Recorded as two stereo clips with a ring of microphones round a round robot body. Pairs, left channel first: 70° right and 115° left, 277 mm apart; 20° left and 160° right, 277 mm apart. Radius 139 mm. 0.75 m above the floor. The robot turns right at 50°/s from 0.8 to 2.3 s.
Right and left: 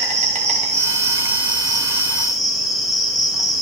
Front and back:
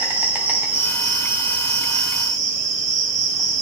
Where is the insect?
125° left, 0.8 m; by 3.6 s 160° right, 0.8 m.